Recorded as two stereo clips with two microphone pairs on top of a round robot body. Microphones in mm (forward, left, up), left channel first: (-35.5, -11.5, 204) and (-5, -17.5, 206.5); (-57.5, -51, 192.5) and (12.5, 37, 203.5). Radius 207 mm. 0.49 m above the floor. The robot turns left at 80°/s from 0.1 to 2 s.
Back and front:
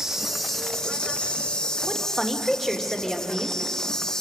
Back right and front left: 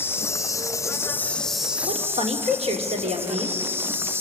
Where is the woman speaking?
80° left, 2.5 m; by 3.6 s 70° left, 2.5 m.